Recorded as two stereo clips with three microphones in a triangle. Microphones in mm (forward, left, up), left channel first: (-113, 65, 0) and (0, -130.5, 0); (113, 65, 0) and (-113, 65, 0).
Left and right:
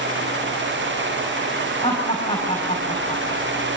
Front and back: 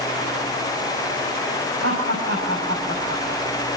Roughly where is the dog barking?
No dog barking in this recording.